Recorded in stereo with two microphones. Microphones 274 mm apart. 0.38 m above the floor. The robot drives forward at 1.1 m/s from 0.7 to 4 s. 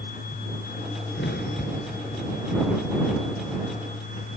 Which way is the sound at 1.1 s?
45° left (ahead or behind).